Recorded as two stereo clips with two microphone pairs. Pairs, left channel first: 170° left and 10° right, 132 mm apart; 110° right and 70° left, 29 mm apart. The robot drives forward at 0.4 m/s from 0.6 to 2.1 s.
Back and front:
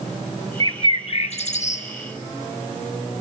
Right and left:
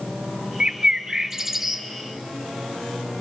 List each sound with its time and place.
0.6 s a bird: 120° left, 0.5 m; by 1.9 s 155° left, 0.9 m